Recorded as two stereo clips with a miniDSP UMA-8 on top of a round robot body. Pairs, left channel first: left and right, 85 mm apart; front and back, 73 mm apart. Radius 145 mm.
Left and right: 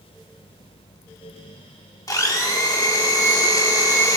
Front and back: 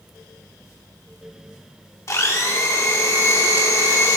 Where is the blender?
45° left, 1.3 m.